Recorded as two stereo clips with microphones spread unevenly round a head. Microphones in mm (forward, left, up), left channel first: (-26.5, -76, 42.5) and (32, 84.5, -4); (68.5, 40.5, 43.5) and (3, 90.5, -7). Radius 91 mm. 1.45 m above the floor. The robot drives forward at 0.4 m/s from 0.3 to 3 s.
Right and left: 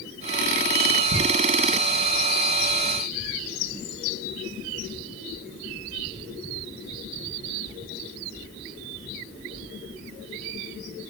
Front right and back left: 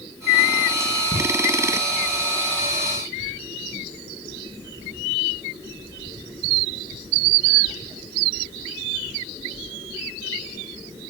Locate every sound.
1.1 s ticking: 55° left, 2 m